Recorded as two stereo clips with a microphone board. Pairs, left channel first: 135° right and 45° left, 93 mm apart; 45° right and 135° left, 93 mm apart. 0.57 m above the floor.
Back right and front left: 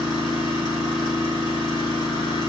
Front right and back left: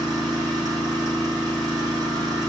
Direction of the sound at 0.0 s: 175° right.